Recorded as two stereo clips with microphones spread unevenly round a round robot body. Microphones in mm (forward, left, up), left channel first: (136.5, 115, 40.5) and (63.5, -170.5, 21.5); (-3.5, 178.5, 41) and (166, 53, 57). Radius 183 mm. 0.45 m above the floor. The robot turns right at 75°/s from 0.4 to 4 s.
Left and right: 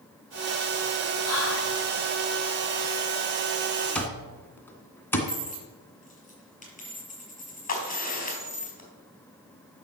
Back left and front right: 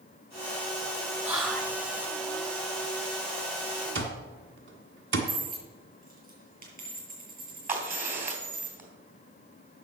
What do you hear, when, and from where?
1.2 s whispering: 40° left, 2.5 m; by 1.8 s 80° left, 2.5 m
4.0 s an alarm clock: 10° right, 2.0 m
5.3 s a dropped coin: 10° left, 6 m
7.7 s a crack: 15° left, 3.5 m